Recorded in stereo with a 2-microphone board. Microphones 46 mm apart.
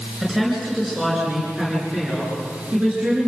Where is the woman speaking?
10° right (ahead or behind), 9 m; by 3.3 s 25° right (ahead or behind), 10.5 m.